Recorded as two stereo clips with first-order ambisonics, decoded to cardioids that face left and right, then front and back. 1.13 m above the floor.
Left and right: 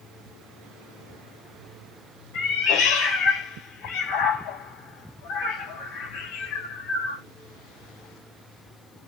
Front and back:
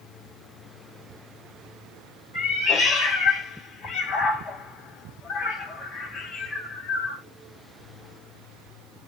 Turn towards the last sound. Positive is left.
turn(degrees=65)